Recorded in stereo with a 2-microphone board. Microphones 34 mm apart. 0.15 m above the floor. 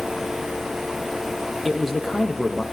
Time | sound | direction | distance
1.6 | a man speaking | centre (ahead or behind) | 3.5 m